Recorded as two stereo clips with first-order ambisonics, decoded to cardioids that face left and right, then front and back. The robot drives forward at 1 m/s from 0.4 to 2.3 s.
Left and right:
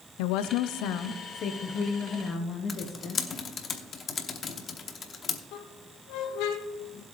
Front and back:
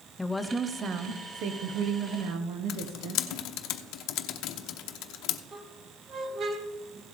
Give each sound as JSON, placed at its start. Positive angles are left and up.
{"t": 0.2, "sound": "a woman speaking", "azimuth_deg": 85, "distance_m": 0.7}
{"t": 2.7, "sound": "typing on a keyboard", "azimuth_deg": 25, "distance_m": 0.8}
{"t": 5.5, "sound": "a squeak", "azimuth_deg": 115, "distance_m": 1.2}